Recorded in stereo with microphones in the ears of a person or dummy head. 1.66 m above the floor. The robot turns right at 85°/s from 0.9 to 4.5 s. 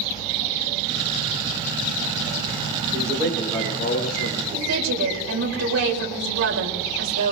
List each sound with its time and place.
2.9 s a man speaking: 45° right, 3 m; by 4.4 s 85° left, 3 m
4.5 s a woman speaking: 85° right, 4 m